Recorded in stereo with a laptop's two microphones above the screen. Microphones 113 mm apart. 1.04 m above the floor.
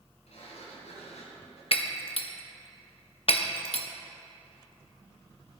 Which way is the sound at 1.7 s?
55° left (ahead or behind).